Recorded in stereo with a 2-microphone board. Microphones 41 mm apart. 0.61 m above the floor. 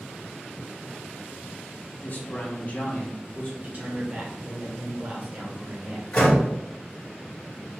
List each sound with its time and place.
2.0 s a man speaking: 40° left (ahead or behind), 1.3 m; by 3.5 s 30° left (ahead or behind), 1.5 m
3.6 s a man speaking: 40° right (ahead or behind), 1.8 m
6.1 s a door slam: 30° left (ahead or behind), 2 m